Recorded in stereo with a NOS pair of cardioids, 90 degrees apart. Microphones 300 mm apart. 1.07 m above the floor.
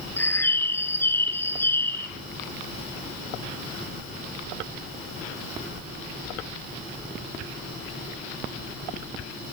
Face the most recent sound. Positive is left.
turn(degrees=5)